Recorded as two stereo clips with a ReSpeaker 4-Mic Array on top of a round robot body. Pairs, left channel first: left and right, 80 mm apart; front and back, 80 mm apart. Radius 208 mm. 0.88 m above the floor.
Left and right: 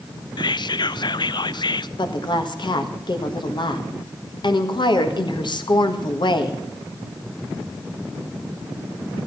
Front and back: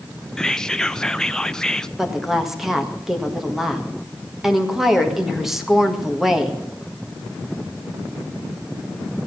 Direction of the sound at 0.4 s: 85° left.